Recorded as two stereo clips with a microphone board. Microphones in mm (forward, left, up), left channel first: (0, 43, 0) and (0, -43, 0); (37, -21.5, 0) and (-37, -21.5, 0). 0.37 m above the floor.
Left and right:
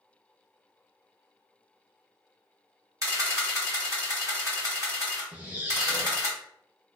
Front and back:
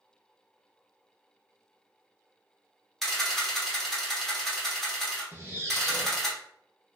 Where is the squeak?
145° right, 0.7 m.